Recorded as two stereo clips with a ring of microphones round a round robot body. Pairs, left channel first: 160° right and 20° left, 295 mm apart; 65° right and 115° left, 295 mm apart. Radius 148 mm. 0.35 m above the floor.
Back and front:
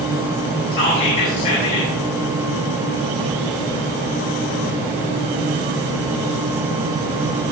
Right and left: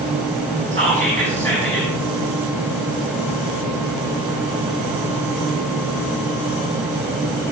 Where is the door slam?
No door slam in this recording.